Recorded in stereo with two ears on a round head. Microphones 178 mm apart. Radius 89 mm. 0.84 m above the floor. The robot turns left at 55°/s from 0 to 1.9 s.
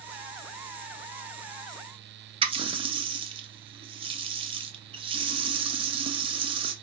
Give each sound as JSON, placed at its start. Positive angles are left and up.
{"t": 2.4, "sound": "a running tap", "side_deg": -25, "distance_m": 0.5}